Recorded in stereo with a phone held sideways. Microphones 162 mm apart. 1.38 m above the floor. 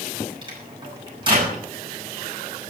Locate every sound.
0.4 s a microwave: 30° right (ahead or behind), 7 m